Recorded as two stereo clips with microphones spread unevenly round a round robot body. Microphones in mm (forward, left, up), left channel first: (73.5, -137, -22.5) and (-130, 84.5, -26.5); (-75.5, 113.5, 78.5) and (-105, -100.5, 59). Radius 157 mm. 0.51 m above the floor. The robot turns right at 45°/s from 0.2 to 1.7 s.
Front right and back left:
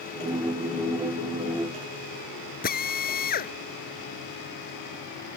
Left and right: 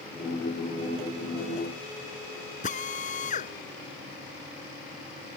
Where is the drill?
15° left.